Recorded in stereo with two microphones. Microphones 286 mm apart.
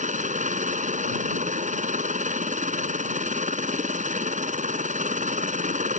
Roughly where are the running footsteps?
I don't hear running footsteps.